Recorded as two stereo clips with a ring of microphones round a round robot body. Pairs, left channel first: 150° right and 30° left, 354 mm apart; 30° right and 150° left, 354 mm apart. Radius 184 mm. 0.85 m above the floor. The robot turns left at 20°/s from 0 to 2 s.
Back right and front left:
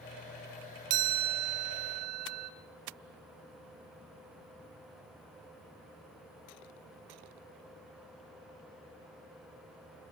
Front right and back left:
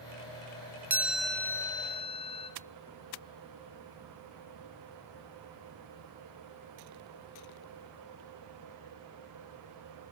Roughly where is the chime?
Ahead left.